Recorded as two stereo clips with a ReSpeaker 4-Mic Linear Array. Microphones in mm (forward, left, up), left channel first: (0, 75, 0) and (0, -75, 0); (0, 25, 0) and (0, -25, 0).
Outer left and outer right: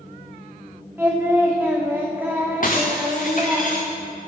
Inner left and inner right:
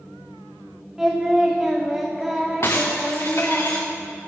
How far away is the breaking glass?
About 1.7 m.